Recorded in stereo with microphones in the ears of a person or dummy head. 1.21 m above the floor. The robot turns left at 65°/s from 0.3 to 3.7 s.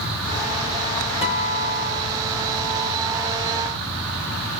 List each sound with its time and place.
1.2 s a guitar: 155° left, 2.5 m; by 3.3 s 20° left, 2.5 m